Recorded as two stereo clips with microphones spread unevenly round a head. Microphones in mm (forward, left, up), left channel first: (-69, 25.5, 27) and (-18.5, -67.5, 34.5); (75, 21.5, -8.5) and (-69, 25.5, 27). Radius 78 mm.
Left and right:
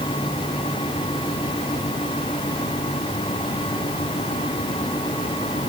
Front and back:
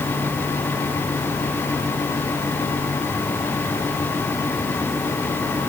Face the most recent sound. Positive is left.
No sound to turn to.